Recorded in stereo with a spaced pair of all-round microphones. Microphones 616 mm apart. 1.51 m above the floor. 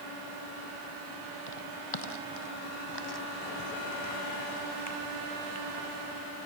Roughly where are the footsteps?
Left.